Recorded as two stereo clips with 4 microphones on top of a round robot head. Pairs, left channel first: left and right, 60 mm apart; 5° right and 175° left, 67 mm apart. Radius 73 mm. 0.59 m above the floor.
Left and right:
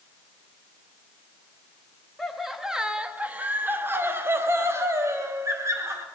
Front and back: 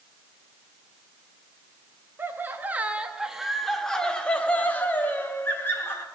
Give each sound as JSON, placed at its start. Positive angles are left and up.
{"t": 2.2, "sound": "laughter", "azimuth_deg": 175, "distance_m": 1.0}